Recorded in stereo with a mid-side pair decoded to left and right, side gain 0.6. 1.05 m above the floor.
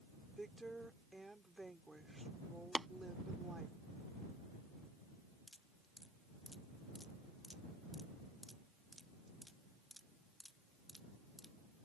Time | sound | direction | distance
0.4 | a woman speaking | 10° right | ?
2.8 | tapping | 15° right | ?
5.5 | dripping | straight ahead | ?